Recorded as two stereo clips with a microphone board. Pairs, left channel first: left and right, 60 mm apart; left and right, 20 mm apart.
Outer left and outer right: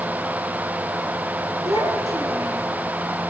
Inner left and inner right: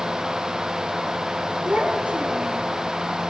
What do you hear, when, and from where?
1.6 s a child speaking: 70° right (ahead or behind), 3.5 m; by 2.7 s 80° right, 4 m